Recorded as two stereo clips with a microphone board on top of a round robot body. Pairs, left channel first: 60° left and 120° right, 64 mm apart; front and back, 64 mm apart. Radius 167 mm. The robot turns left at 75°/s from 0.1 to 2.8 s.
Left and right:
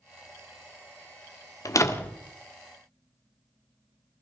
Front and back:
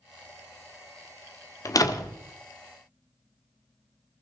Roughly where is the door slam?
Ahead left.